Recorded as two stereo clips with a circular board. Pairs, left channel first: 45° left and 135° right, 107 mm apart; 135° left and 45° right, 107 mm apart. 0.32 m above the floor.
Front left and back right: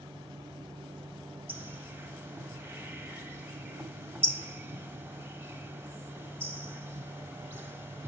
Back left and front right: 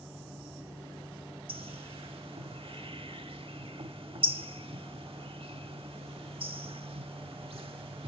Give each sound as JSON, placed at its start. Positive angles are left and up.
{"t": 1.5, "sound": "a bird", "azimuth_deg": -65, "distance_m": 0.5}